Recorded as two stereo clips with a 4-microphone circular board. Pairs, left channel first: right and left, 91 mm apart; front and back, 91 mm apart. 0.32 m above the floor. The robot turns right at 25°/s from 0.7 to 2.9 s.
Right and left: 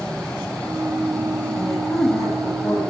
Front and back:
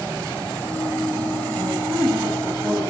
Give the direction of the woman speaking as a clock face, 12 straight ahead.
5 o'clock.